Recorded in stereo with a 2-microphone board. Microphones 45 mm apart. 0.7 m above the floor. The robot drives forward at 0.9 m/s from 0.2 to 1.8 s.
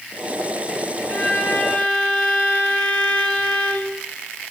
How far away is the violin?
About 4 m.